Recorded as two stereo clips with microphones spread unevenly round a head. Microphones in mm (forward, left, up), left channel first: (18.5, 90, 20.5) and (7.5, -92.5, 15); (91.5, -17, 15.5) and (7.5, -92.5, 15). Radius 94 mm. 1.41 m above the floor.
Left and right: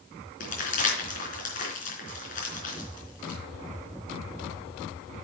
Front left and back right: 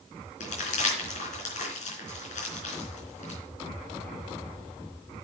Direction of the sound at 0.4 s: 40° left.